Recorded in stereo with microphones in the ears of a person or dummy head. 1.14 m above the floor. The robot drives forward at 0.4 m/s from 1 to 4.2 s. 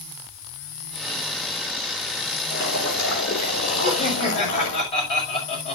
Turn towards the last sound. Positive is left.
turn(degrees=40)  # may be behind; listen again after turning